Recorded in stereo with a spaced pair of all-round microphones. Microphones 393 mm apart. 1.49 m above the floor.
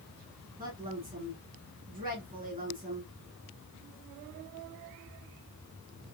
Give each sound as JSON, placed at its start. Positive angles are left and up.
{"t": 0.6, "sound": "a woman speaking", "side_deg": -20, "distance_m": 2.0}